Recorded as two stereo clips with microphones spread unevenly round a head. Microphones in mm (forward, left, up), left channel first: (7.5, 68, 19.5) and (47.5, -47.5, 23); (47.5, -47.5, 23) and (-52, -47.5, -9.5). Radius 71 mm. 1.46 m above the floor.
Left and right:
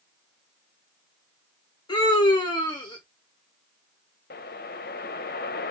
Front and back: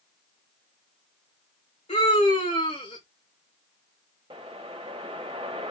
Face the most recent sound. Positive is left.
turn(degrees=115)